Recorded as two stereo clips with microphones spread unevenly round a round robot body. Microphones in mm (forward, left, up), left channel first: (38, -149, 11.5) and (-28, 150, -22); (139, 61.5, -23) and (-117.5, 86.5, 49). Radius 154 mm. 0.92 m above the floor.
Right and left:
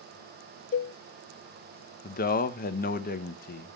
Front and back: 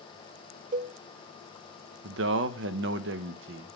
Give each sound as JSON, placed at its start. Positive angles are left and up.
{"t": 0.7, "sound": "a cowbell", "azimuth_deg": -120, "distance_m": 0.5}
{"t": 2.0, "sound": "a man speaking", "azimuth_deg": -135, "distance_m": 0.7}